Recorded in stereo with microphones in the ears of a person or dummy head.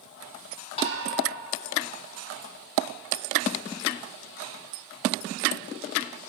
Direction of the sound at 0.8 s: 40° left (ahead or behind).